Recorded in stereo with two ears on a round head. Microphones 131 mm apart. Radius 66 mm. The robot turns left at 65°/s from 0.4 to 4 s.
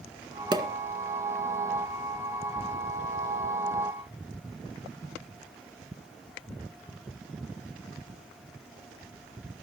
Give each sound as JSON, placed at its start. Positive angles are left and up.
{"t": 0.5, "sound": "a pop", "side_deg": -30, "distance_m": 1.8}